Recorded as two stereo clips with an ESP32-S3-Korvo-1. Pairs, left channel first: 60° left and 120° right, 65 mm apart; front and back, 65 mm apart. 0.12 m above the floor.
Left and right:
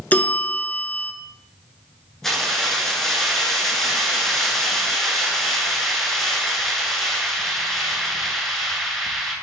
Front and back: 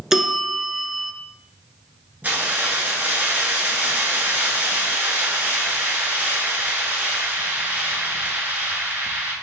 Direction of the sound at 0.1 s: 100° left.